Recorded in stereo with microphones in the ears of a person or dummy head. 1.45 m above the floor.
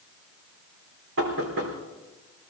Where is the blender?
I don't hear a blender.